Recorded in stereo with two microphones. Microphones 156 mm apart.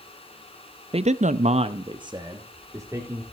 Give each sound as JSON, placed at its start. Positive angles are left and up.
{"t": 0.9, "sound": "a man speaking", "side_deg": -40, "distance_m": 0.6}